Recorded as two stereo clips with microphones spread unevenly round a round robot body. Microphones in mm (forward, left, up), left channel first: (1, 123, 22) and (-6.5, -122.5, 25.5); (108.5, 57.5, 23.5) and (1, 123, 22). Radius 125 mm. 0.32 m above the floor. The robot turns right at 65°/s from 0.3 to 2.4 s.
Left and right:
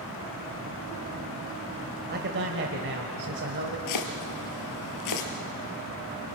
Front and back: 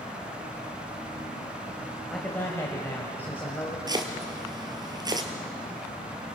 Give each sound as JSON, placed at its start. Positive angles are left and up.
{"t": 2.1, "sound": "a man speaking", "azimuth_deg": -125, "distance_m": 2.0}
{"t": 3.9, "sound": "chopping", "azimuth_deg": 90, "distance_m": 3.0}